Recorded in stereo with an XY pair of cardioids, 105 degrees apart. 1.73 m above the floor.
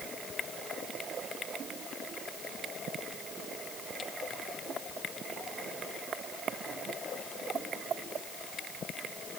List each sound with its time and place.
Only background noise.